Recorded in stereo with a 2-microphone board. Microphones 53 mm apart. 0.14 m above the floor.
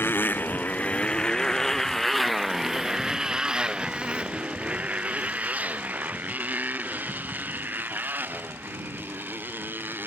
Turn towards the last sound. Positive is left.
turn(degrees=-40)  # may be behind; listen again after turning